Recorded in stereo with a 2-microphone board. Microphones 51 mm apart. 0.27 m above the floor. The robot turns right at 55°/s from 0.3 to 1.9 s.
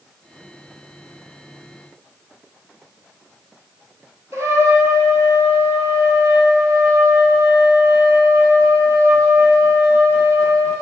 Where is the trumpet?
65° right (ahead or behind), 0.7 m.